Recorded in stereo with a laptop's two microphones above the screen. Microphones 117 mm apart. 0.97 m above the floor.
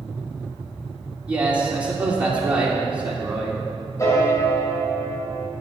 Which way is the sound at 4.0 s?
30° left (ahead or behind).